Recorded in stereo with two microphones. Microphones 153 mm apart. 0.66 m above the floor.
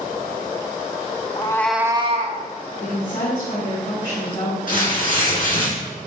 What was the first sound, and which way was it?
A cat meowing, 35° left (ahead or behind).